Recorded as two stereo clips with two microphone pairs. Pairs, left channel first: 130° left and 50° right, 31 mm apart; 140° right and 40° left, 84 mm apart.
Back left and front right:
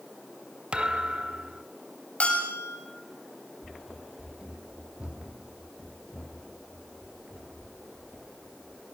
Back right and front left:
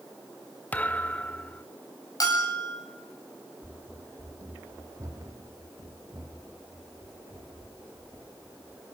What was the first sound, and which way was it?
A thud, 75° right.